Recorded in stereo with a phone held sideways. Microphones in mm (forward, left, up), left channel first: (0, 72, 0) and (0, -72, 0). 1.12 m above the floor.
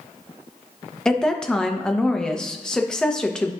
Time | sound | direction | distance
1.1 | a woman speaking | 5° left (ahead or behind) | 0.7 m